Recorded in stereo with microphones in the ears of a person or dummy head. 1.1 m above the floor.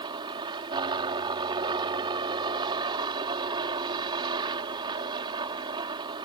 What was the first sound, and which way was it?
A helicopter, 25° right (ahead or behind).